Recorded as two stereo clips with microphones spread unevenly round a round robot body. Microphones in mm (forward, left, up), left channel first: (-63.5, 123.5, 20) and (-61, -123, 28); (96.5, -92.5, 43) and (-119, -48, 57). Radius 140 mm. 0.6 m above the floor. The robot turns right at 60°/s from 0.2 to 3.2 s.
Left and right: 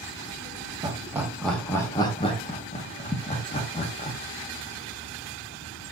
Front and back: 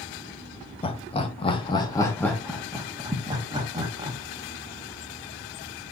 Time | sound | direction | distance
0.8 | laughter | 30° right | 0.7 m